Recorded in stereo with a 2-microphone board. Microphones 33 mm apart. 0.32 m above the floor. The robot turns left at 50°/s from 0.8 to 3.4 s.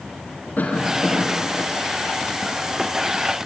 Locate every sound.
0.6 s a cough: 70° left, 4.5 m; by 1.7 s 25° left, 4.5 m